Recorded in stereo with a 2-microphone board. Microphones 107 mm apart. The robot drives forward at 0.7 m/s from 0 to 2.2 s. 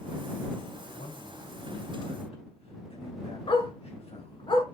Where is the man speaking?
70° left (ahead or behind), 3.5 m; by 4.5 s 60° left (ahead or behind), 3.5 m.